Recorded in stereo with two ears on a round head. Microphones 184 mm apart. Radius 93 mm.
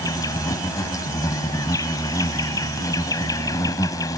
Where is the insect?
15° left (ahead or behind).